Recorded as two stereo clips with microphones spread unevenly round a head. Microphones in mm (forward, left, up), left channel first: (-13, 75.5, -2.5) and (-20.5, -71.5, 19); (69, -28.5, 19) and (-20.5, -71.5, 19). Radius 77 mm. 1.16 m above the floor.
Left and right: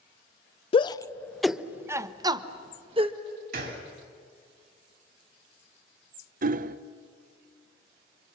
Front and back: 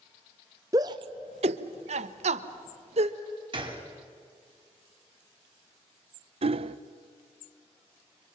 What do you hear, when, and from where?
0.7 s a shout: 140° left, 0.6 m; by 3.2 s 145° right, 1.4 m
3.5 s a gunshot: 115° right, 3.5 m
6.4 s hammering: 130° right, 0.6 m